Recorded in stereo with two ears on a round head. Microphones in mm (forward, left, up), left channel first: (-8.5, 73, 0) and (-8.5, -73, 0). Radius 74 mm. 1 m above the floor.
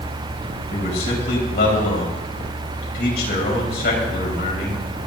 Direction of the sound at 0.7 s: 65° left (ahead or behind).